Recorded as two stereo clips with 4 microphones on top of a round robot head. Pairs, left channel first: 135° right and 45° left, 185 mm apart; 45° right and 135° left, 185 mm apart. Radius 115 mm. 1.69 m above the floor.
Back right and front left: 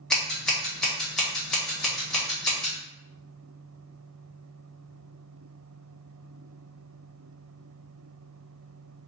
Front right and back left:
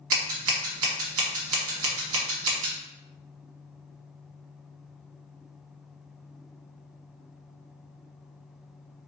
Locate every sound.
0.1 s scissors: 140° left, 1.0 m